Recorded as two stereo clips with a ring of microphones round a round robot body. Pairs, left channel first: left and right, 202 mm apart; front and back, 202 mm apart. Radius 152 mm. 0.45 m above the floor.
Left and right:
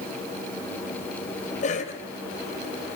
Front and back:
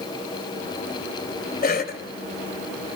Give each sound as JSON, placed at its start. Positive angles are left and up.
{"t": 1.6, "sound": "a cough", "azimuth_deg": 40, "distance_m": 2.0}